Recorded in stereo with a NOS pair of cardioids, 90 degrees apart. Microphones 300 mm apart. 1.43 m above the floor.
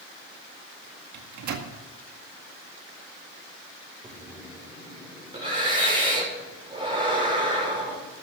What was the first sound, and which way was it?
A microwave, 65° right.